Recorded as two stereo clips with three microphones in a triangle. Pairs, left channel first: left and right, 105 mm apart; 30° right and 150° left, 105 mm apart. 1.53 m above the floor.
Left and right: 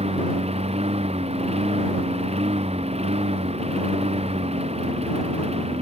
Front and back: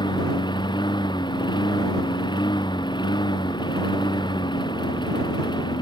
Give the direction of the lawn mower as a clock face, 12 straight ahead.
3 o'clock.